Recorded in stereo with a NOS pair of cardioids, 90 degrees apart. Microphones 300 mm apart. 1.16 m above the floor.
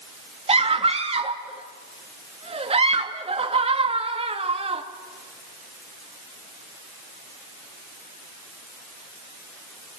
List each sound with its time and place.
0.5 s a scream: 20° right, 2.5 m